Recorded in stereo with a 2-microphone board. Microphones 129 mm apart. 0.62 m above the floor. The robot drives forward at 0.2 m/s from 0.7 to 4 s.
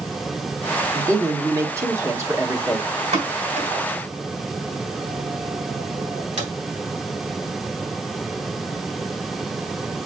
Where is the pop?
80° right, 3 m.